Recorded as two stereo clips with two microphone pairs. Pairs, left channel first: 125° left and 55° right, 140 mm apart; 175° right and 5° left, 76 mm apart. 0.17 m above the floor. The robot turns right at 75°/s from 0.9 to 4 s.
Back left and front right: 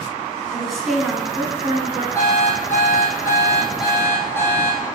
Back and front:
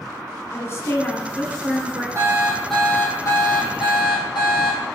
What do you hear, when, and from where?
0.5 s a woman speaking: 145° right, 1.7 m; by 2.0 s 60° right, 1.7 m
2.1 s an alarm clock: 55° left, 2.5 m; by 4.8 s 165° right, 2.5 m